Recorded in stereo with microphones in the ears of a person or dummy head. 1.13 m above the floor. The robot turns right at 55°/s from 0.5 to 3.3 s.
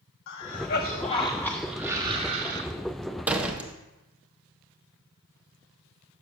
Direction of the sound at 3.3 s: 10° right (ahead or behind).